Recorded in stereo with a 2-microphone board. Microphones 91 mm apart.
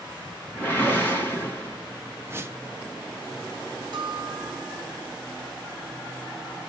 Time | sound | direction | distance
0.6 | a whoosh | 20° left (ahead or behind) | 2.5 m
2.2 | a whoosh | 25° right (ahead or behind) | 0.6 m
3.9 | a bell | 60° right (ahead or behind) | 1.7 m